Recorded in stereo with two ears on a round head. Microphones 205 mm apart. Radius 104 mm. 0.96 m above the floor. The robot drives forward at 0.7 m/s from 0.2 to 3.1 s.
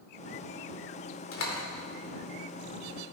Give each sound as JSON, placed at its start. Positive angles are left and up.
{"t": 1.3, "sound": "a door slam", "side_deg": 65, "distance_m": 2.0}